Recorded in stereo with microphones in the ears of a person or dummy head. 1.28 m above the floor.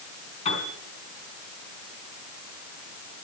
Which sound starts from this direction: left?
A piano, at 0.5 s.